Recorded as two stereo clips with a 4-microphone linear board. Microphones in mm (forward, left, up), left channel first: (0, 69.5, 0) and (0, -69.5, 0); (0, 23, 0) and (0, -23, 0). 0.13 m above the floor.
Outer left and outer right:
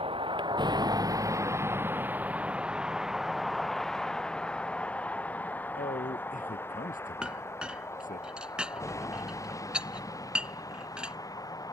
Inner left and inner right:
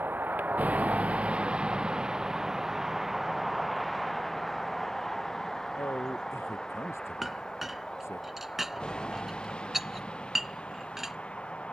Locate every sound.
0.0 s a vehicle: 45° right (ahead or behind); by 11.7 s 25° left (ahead or behind)
5.8 s a man speaking: 85° left
7.2 s a clink: 5° right (ahead or behind)